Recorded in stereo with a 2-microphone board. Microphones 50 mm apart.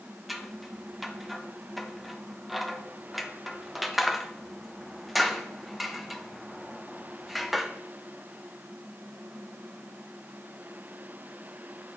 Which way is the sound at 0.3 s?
Centre (ahead or behind).